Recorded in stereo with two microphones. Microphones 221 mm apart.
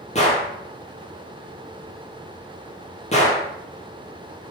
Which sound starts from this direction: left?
A gunshot, at 0.1 s.